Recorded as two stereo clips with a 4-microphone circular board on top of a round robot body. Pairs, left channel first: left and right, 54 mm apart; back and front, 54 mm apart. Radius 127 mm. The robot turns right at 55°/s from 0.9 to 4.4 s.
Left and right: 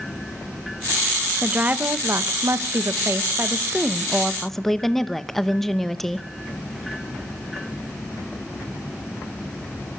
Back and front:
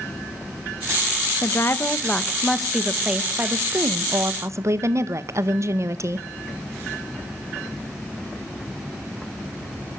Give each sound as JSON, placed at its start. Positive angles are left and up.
{"t": 1.4, "sound": "a woman speaking", "azimuth_deg": -160, "distance_m": 1.5}